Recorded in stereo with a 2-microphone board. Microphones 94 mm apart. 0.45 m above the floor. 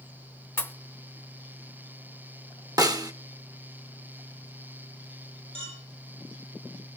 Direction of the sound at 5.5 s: 60° right (ahead or behind).